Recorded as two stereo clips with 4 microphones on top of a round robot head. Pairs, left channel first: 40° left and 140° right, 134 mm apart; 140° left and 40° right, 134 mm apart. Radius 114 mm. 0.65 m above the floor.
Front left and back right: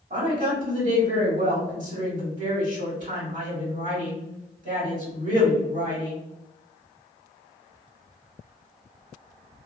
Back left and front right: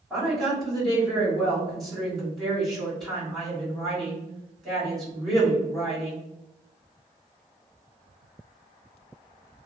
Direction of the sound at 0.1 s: 130° right.